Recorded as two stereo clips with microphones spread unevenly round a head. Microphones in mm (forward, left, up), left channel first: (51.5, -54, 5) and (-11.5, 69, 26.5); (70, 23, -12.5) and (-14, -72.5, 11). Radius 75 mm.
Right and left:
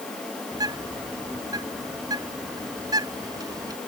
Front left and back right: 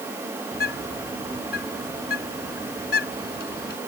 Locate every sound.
0.5 s a bird: 55° left